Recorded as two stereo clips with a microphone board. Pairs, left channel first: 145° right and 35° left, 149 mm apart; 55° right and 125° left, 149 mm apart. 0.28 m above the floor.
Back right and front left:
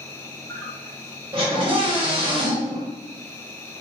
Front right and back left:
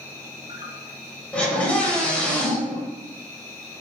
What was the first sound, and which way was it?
An insect, 165° left.